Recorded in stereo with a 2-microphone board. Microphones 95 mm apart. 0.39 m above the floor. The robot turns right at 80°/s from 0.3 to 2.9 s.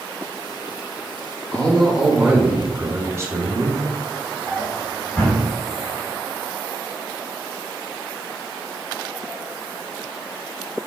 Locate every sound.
1.5 s a man speaking: 15° left (ahead or behind), 0.9 m; by 4.4 s 30° right (ahead or behind), 0.9 m
4.5 s a drawer: 25° left (ahead or behind), 1.6 m